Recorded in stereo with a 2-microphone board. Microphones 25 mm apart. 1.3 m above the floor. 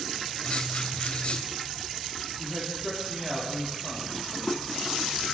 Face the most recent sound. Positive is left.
turn(degrees=-25)  # may be behind; listen again after turning